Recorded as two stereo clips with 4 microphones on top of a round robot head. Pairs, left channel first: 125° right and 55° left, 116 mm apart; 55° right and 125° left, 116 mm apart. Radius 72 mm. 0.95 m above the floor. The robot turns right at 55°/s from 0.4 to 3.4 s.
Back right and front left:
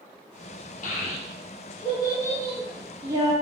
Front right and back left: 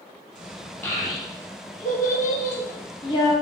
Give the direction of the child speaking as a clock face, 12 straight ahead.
4 o'clock.